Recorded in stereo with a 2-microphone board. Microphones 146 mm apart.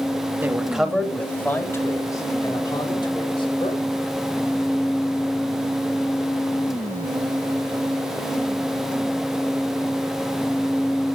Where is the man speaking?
15° right (ahead or behind), 1.7 m; by 3.8 s 35° left (ahead or behind), 4 m.